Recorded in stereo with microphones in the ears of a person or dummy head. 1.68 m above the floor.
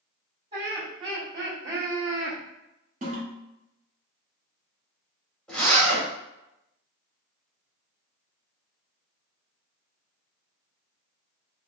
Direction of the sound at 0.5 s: 50° right (ahead or behind).